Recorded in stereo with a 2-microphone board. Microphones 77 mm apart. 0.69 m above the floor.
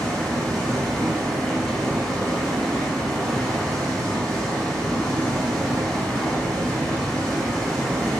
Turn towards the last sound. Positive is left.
turn(degrees=10)  # may be behind; listen again after turning